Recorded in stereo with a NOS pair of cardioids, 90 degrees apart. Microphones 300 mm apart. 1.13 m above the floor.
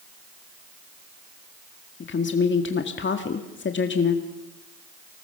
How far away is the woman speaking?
About 1.8 m.